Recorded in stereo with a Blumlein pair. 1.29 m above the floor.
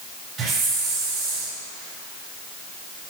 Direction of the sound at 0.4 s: 35° right.